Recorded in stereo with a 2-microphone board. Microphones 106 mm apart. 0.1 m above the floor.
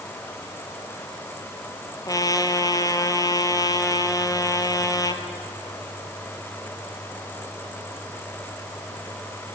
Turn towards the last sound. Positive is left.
turn(degrees=35)  # may be behind; listen again after turning